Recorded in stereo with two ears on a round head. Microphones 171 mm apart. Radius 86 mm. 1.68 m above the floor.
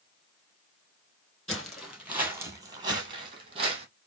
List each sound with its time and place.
1.5 s footsteps: 5° left (ahead or behind), 2 m; by 3.9 s 35° right (ahead or behind), 2.5 m